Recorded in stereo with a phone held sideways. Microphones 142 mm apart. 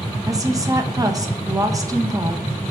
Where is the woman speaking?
25° right (ahead or behind), 1.3 m.